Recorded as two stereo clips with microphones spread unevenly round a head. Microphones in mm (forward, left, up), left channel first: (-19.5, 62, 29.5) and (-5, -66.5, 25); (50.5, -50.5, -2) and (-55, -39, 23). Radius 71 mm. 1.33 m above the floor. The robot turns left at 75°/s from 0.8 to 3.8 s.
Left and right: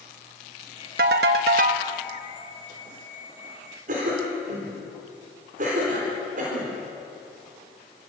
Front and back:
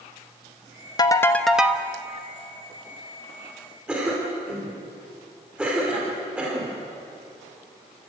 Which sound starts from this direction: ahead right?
A ringtone, at 1.0 s.